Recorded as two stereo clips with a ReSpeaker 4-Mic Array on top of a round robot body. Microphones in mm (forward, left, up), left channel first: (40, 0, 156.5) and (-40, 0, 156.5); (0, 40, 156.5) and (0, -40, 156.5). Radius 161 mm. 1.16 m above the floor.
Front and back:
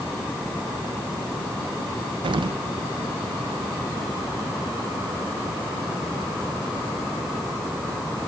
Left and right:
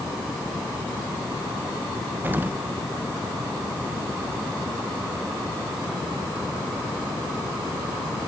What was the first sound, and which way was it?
An explosion, 160° right.